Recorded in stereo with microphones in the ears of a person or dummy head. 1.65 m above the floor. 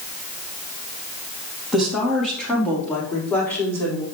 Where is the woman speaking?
5° right (ahead or behind), 4 m; by 4.0 s 10° left (ahead or behind), 6 m.